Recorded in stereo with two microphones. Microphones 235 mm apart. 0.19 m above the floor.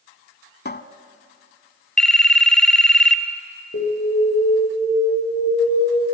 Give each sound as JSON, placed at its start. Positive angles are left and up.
{"t": 0.7, "sound": "a cupboard door", "side_deg": 45, "distance_m": 0.7}
{"t": 2.0, "sound": "a phone ringing", "side_deg": 5, "distance_m": 1.0}
{"t": 3.7, "sound": "an alarm", "side_deg": 60, "distance_m": 8.0}